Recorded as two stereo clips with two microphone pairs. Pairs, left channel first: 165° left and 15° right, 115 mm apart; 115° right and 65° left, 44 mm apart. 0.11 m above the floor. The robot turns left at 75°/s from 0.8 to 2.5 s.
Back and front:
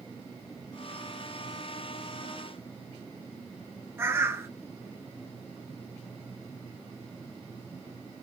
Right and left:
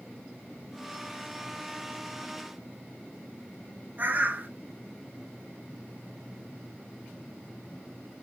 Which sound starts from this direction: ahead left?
A bird, at 4.0 s.